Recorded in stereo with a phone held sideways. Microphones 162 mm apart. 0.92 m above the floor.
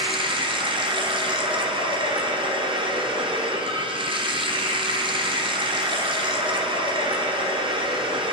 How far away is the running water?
About 0.8 m.